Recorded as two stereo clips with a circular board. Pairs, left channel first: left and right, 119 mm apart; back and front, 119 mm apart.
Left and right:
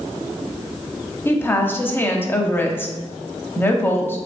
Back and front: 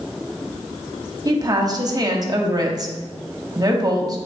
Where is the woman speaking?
30° left, 0.7 m.